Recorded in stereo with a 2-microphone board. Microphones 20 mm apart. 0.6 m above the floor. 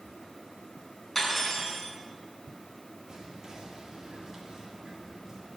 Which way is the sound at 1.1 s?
5° left (ahead or behind).